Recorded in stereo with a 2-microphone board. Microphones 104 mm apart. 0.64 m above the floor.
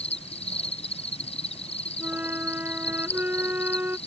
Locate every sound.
0.0 s an insect: 75° left (ahead or behind)
2.0 s a flute: 15° right (ahead or behind)